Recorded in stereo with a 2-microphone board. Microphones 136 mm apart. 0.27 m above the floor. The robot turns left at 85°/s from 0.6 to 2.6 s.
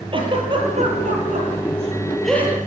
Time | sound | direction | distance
0.1 | a giggle | 40° right (ahead or behind) | 7.5 m